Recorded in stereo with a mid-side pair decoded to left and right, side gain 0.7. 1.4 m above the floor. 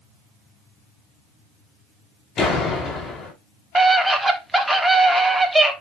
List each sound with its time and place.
2.4 s a door slam: 35° left, 5 m
3.8 s a scream: 5° right, 3 m